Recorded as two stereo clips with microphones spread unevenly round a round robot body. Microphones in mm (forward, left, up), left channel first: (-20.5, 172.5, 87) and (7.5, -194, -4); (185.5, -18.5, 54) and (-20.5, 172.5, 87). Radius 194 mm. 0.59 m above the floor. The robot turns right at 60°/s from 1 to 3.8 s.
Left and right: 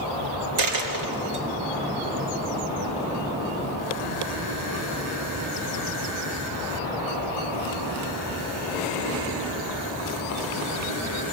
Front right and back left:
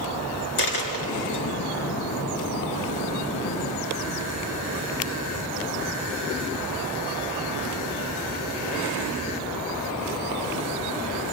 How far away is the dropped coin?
About 3 m.